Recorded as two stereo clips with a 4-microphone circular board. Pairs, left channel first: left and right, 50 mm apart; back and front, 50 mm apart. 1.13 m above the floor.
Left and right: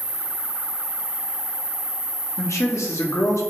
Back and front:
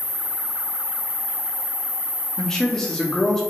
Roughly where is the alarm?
I don't hear an alarm.